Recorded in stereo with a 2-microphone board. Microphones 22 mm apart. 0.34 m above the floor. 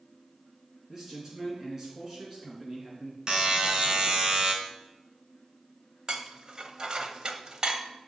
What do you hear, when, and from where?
0.9 s a man speaking: 15° right (ahead or behind), 3.5 m
3.3 s a buzzer: 40° right (ahead or behind), 1.9 m
6.1 s dishes clattering: 40° right (ahead or behind), 1.0 m